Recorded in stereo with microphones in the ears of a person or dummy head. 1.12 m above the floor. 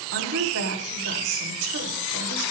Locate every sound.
0.1 s a woman speaking: 75° right (ahead or behind), 2.5 m